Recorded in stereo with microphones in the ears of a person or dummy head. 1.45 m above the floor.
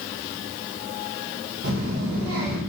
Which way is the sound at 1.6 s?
45° right (ahead or behind).